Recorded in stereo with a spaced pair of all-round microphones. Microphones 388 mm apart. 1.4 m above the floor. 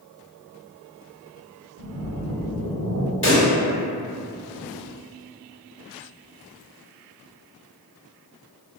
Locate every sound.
1.8 s a splash: 50° right (ahead or behind), 0.7 m
3.2 s a pop: 30° left (ahead or behind), 1.2 m